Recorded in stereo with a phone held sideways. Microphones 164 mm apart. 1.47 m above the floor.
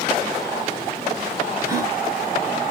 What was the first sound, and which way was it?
A gasp, 15° right (ahead or behind).